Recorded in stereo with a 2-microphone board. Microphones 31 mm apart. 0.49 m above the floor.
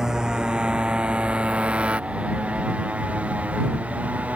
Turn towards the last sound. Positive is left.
turn(degrees=-50)  # may be behind; listen again after turning